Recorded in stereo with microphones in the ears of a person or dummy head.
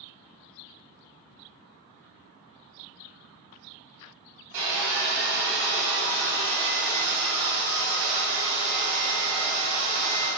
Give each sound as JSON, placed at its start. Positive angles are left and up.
{"t": 4.5, "sound": "sawing", "side_deg": -35, "distance_m": 1.3}